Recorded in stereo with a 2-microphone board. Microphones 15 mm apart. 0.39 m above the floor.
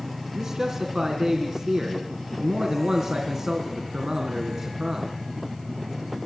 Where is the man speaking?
45° right (ahead or behind), 4 m.